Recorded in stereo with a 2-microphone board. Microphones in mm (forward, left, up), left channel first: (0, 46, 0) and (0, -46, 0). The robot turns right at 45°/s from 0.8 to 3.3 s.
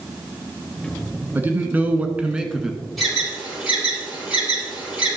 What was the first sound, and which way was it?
A man speaking, 20° right (ahead or behind).